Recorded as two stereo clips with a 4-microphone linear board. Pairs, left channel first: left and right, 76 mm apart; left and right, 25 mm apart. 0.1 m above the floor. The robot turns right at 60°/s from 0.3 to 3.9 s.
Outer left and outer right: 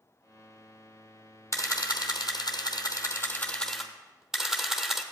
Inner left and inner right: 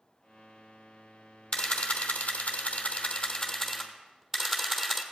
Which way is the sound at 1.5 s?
40° left.